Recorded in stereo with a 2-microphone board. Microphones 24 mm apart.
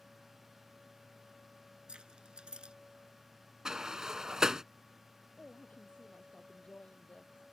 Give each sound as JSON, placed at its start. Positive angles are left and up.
{"t": 1.9, "sound": "keys jangling", "side_deg": -45}
{"t": 3.6, "sound": "a sliding door", "side_deg": -25}
{"t": 5.4, "sound": "a woman speaking", "side_deg": 65}